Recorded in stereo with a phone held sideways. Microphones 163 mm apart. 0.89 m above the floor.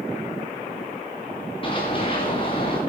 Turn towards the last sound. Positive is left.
turn(degrees=35)  # may be behind; listen again after turning